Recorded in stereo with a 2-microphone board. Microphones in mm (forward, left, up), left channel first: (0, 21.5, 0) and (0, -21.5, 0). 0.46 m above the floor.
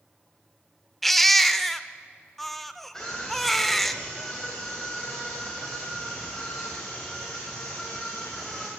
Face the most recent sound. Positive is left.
turn(degrees=10)  # may be behind; listen again after turning